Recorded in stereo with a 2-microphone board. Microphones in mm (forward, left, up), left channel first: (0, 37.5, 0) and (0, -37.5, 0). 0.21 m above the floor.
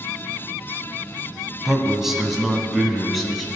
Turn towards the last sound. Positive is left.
turn(degrees=0)  # may be behind; listen again after turning